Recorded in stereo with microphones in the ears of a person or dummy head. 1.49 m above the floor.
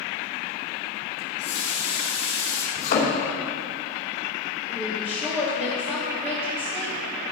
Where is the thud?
50° left (ahead or behind), 2.5 m.